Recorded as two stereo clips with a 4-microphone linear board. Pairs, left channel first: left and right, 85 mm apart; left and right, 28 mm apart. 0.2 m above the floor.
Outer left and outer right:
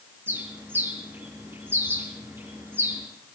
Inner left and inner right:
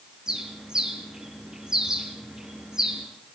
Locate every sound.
0.3 s a bird: 25° right (ahead or behind), 4.5 m